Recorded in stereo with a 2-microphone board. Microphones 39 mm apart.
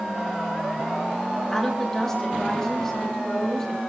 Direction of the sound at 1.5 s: 10° left (ahead or behind).